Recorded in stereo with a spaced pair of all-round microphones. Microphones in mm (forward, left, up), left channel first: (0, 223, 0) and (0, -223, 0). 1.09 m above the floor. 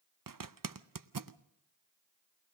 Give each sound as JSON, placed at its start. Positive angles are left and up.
{"t": 0.3, "sound": "a zipper", "side_deg": -50, "distance_m": 0.6}